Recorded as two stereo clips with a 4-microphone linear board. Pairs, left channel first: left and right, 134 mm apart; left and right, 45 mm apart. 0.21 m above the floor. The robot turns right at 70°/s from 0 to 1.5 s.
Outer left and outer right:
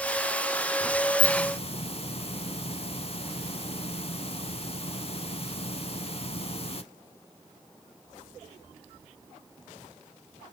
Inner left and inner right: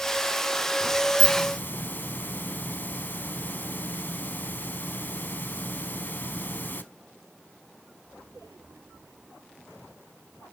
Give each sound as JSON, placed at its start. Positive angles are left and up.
{"t": 1.2, "sound": "a hiss", "side_deg": 50, "distance_m": 0.7}